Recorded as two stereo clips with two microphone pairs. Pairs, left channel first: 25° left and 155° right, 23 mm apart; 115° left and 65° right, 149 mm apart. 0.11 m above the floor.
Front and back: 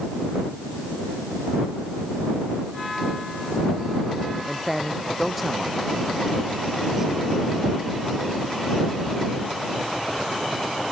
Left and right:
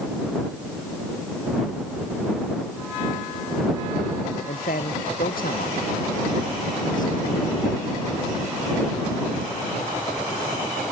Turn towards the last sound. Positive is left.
turn(degrees=140)